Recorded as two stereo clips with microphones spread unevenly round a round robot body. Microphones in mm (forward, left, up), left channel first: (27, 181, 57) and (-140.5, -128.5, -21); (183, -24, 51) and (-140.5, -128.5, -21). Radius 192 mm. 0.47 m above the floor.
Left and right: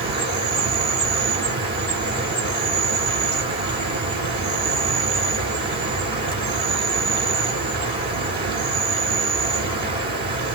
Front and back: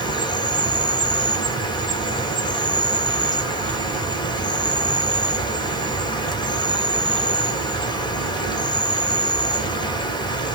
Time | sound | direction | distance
0.0 | an insect | 70° right | 1.2 m